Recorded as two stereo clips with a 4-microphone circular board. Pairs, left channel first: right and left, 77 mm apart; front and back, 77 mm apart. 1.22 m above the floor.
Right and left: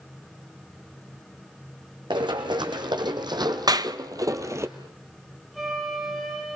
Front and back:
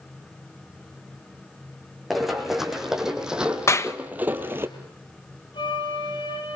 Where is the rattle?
No rattle in this recording.